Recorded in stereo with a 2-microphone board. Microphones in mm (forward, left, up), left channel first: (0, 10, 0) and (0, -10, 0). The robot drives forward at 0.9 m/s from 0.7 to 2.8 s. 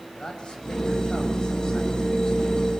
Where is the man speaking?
55° left (ahead or behind), 7.5 m; by 2.7 s 45° left (ahead or behind), 8.5 m.